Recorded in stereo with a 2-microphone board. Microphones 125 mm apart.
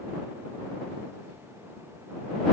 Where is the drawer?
I don't hear a drawer.